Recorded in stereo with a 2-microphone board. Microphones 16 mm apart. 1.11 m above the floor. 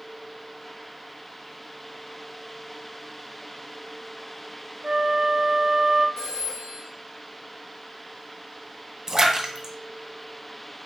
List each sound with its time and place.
4.8 s a flute: 55° right (ahead or behind), 0.5 m
6.2 s a phone ringing: 70° left (ahead or behind), 2.5 m
9.1 s a splash: 35° right (ahead or behind), 0.9 m